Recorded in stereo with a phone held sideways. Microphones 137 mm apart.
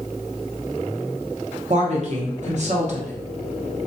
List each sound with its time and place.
1.7 s a woman speaking: 55° right (ahead or behind), 0.7 m